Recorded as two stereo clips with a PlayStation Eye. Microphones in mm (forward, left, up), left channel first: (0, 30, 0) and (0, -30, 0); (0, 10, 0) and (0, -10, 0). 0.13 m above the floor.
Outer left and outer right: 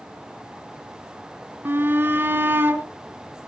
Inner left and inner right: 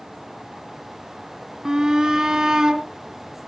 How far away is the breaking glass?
I don't hear breaking glass.